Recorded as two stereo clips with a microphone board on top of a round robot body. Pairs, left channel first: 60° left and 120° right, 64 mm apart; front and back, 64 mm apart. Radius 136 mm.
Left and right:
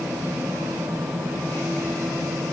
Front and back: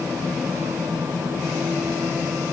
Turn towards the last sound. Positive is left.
No sound to turn to.